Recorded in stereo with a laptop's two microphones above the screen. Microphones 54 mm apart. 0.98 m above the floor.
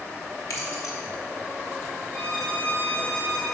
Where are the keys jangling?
75° left (ahead or behind), 1.3 m.